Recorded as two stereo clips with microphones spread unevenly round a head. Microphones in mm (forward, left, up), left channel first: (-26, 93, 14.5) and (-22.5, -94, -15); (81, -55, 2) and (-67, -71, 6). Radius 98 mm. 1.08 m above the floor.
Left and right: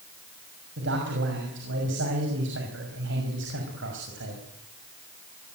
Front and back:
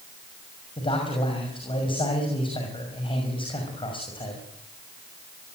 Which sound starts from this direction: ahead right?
A man speaking, at 0.8 s.